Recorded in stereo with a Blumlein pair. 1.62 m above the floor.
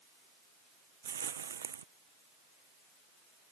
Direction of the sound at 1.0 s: 70° right.